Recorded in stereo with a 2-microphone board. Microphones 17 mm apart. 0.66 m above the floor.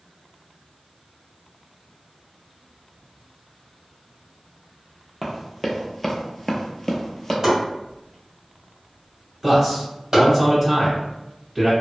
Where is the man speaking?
20° right (ahead or behind), 1.8 m.